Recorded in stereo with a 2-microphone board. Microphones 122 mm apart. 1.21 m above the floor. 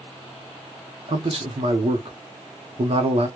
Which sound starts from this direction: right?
A man speaking, at 1.1 s.